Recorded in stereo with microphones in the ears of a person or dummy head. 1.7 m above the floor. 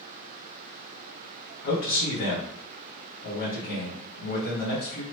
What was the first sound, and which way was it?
A man speaking, 50° left (ahead or behind).